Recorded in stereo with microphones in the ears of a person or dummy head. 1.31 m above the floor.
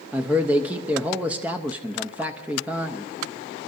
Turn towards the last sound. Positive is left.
turn(degrees=-5)  # may be behind; listen again after turning